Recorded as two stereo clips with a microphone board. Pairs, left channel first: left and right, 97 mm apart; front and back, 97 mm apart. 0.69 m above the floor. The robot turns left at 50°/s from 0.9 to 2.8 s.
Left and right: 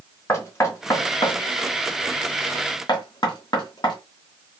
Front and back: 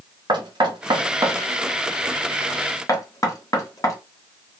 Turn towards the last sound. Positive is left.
turn(degrees=55)